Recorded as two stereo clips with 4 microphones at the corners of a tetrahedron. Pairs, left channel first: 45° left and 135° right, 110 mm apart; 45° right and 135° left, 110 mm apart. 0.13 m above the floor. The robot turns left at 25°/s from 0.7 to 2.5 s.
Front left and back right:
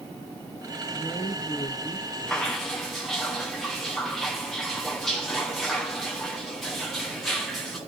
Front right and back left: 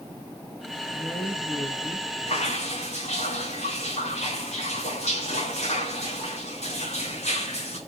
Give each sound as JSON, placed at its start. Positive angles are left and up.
{"t": 0.9, "sound": "a woman speaking", "azimuth_deg": 15, "distance_m": 4.5}
{"t": 2.3, "sound": "dripping", "azimuth_deg": -35, "distance_m": 5.0}